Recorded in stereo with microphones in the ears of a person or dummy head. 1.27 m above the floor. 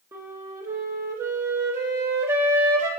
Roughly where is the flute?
Centre.